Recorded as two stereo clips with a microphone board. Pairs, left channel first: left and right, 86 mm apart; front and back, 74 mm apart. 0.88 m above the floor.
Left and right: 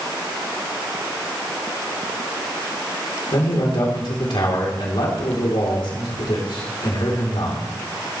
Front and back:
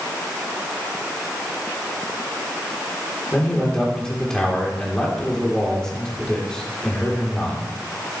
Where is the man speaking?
80° left, 3 m.